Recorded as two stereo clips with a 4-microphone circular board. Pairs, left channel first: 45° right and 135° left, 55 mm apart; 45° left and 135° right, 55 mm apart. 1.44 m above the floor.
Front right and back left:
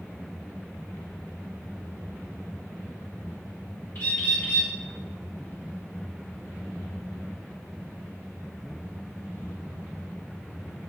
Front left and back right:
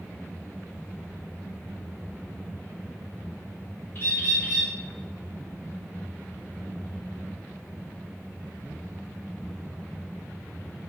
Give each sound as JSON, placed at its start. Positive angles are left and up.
{"t": 4.0, "sound": "a bird", "azimuth_deg": -5, "distance_m": 3.0}